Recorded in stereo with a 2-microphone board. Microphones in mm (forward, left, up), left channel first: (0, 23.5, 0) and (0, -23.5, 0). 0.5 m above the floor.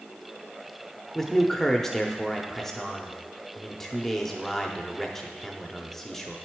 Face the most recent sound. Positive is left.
turn(degrees=5)  # may be behind; listen again after turning